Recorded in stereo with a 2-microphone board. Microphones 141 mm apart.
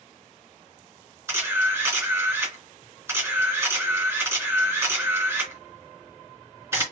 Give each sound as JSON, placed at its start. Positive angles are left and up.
{"t": 1.3, "sound": "a camera shutter", "side_deg": -20, "distance_m": 2.5}